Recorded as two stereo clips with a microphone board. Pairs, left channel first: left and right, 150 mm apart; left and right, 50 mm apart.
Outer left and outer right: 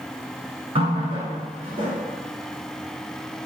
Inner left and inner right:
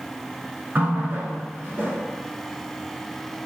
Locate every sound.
0.8 s a running tap: 40° right (ahead or behind), 0.9 m